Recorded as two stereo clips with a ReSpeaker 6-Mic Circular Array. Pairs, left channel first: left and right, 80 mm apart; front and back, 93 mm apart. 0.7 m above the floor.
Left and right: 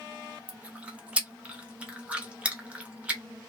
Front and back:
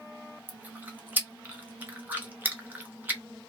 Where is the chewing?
140° right, 0.9 m.